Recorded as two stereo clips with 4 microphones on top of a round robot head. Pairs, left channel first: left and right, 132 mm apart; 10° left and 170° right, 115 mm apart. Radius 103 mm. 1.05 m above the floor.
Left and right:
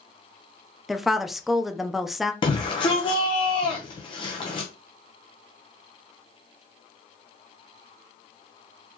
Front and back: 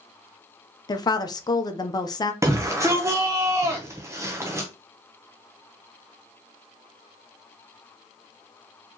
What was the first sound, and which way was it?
A woman speaking, 5° right.